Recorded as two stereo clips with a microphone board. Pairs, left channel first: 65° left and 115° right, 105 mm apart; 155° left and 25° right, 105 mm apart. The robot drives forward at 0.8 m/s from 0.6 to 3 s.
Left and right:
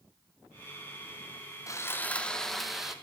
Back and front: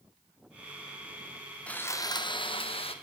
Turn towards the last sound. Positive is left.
turn(degrees=165)